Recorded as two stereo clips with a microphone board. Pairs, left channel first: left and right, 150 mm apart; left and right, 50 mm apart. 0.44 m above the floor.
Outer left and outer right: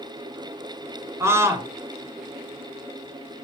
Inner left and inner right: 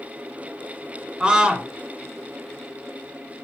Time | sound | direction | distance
1.2 | a scream | 20° right (ahead or behind) | 1.8 m